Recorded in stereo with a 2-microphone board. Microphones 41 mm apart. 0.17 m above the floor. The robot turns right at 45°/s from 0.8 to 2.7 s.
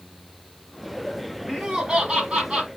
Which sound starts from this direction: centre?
Laughter, at 1.5 s.